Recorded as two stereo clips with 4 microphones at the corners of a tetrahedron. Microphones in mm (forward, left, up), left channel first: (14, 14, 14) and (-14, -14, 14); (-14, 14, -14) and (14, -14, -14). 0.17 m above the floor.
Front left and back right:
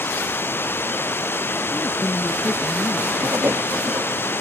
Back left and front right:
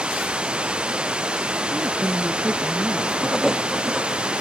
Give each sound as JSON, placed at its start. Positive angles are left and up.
{"t": 0.0, "sound": "running water", "azimuth_deg": 20}
{"t": 1.7, "sound": "a woman speaking", "azimuth_deg": -15}
{"t": 3.2, "sound": "writing", "azimuth_deg": -130}